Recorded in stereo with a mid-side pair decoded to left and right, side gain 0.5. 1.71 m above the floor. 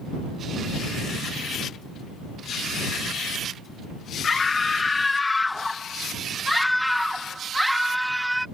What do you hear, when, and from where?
4.2 s a scream: 30° left; by 8.4 s 10° right